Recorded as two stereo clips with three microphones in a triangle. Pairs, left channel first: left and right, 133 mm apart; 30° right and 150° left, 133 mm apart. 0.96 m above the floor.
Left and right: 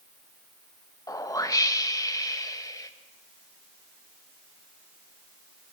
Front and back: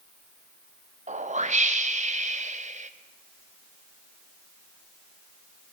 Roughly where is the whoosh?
Behind left.